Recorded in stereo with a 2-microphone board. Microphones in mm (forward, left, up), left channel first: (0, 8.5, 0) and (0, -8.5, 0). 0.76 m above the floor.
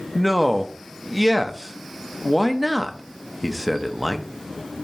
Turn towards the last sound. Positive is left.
turn(degrees=-5)  # may be behind; listen again after turning